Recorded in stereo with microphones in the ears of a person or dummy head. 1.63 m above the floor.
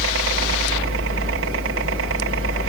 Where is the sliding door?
I don't hear a sliding door.